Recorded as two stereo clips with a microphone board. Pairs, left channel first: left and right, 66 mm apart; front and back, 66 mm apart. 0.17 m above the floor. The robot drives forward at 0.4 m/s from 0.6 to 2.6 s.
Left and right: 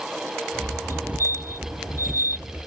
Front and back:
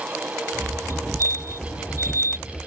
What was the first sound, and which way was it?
A fire alarm, 135° right.